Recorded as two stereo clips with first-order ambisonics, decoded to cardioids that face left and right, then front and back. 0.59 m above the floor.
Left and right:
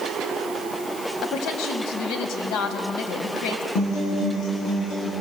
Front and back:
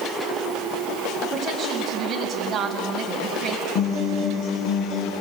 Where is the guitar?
40° left, 6.5 m.